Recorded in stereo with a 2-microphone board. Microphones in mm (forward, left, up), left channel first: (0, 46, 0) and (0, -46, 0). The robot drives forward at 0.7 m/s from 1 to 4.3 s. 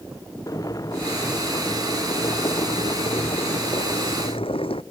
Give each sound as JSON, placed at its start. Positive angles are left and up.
{"t": 0.5, "sound": "boiling", "side_deg": 40}